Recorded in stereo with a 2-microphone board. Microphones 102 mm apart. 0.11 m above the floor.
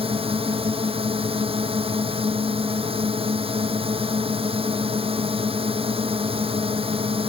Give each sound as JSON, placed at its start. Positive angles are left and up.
{"t": 0.0, "sound": "a drone", "side_deg": -65}